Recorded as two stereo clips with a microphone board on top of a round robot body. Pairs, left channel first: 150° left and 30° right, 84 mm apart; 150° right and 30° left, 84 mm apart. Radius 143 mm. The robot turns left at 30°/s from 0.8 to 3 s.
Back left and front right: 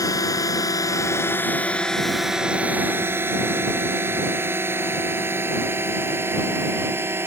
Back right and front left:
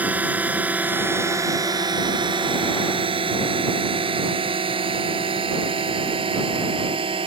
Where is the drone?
100° left; by 7.3 s 35° left.